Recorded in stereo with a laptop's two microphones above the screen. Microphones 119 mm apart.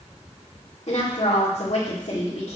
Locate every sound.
0.9 s a woman speaking: 65° left (ahead or behind), 2 m